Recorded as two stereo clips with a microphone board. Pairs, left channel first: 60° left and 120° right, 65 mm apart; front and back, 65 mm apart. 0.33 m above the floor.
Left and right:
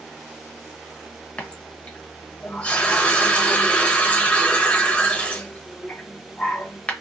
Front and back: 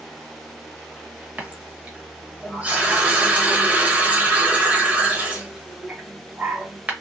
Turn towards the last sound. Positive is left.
turn(degrees=120)